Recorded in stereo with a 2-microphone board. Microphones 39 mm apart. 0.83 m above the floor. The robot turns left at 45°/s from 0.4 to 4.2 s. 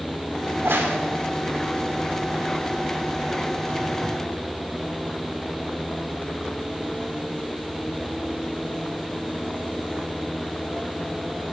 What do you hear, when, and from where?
0.5 s a crack: 70° right (ahead or behind), 1.7 m; by 1.0 s 80° right, 1.7 m